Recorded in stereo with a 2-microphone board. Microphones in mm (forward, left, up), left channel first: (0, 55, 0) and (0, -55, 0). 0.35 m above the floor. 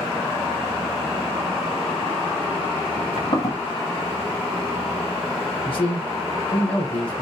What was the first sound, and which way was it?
Footsteps, 70° left (ahead or behind).